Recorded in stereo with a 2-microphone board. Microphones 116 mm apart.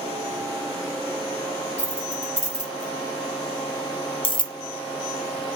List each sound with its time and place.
1.8 s keys jangling: 85° left, 1.8 m; by 4.5 s 40° left (ahead or behind), 0.5 m